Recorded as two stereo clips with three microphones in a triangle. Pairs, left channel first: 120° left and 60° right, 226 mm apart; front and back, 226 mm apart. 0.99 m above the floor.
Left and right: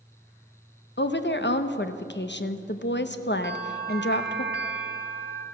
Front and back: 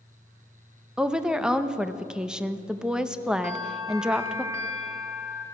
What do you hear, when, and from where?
1.0 s a woman speaking: 95° left, 0.7 m
3.4 s a bell: 105° right, 1.4 m